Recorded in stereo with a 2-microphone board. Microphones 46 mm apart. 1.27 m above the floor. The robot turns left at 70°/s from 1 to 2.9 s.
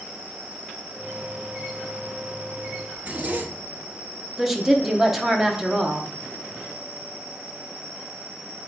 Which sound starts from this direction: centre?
A woman speaking, at 4.4 s.